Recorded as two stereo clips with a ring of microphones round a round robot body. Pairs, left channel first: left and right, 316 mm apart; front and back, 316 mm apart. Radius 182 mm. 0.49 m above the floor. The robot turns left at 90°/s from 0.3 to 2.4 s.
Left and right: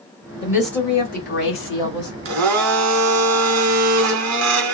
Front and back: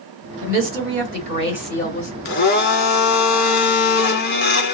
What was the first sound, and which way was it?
A woman speaking, 155° right.